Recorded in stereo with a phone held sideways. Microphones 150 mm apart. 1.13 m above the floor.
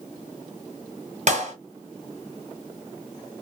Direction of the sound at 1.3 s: 55° right (ahead or behind).